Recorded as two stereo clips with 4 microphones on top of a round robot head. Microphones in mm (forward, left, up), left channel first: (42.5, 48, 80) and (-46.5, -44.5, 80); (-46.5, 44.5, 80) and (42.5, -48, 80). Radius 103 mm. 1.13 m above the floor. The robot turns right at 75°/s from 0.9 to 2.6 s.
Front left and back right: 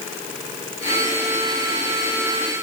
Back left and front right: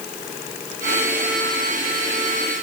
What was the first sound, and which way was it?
Only background noise.